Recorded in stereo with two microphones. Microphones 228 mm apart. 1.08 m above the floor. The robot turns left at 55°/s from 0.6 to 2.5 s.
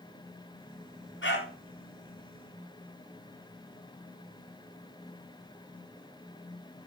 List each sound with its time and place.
1.2 s a dog barking: 60° left (ahead or behind), 3.5 m; by 1.5 s 45° left (ahead or behind), 3.5 m